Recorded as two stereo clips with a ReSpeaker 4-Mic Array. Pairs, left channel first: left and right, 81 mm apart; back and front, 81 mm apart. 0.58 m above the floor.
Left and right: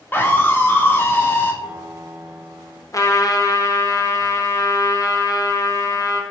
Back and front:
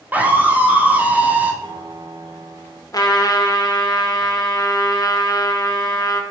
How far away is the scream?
About 0.7 m.